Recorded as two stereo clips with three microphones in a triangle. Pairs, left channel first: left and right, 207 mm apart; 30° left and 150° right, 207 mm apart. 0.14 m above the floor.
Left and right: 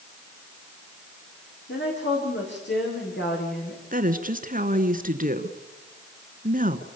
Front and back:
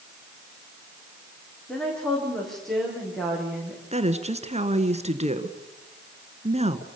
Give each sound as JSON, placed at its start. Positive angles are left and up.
{"t": 1.7, "sound": "a woman speaking", "azimuth_deg": 115, "distance_m": 9.5}
{"t": 3.9, "sound": "a woman speaking", "azimuth_deg": -110, "distance_m": 1.6}